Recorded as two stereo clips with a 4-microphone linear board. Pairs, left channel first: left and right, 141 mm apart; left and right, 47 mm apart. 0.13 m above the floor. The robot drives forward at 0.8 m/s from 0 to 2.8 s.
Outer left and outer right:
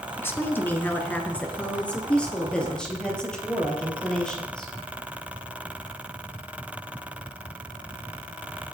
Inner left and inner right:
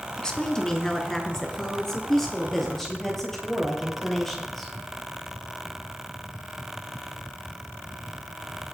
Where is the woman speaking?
15° left (ahead or behind), 1.1 m; by 4.7 s 5° left (ahead or behind), 2.5 m.